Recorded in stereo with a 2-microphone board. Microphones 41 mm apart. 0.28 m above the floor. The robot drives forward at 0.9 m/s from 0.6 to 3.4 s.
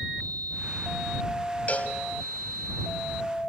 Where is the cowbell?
40° left (ahead or behind), 1.7 m; by 1.9 s 35° left (ahead or behind), 1.8 m.